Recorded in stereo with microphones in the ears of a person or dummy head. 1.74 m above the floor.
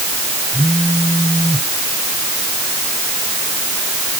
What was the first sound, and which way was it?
A phone buzzing, 10° left (ahead or behind).